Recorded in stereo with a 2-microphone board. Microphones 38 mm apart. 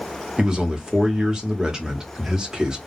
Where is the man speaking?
20° right (ahead or behind), 1.2 m.